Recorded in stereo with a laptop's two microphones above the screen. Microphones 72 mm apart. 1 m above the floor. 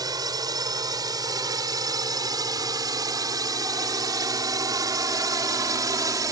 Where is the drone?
75° right (ahead or behind); by 6.3 s 65° right (ahead or behind).